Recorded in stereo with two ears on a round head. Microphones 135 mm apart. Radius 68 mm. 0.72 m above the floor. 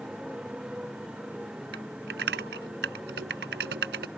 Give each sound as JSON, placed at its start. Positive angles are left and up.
{"t": 0.0, "sound": "a motorcycle", "side_deg": -5}
{"t": 1.7, "sound": "typing on a keyboard", "side_deg": -80}